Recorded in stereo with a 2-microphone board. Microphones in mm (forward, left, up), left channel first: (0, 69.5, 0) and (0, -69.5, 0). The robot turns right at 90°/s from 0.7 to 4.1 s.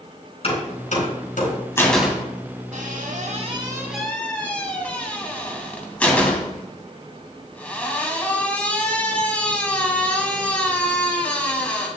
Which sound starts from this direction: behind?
A door slam, at 1.8 s.